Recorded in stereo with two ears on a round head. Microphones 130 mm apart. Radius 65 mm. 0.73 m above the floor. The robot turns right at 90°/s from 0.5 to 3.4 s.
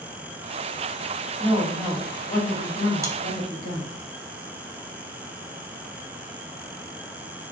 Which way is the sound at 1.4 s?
40° right.